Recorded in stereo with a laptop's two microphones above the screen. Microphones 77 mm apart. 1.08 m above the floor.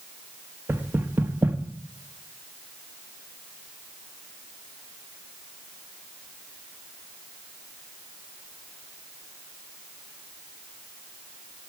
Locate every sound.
0.7 s knocking: 25° right (ahead or behind), 1.5 m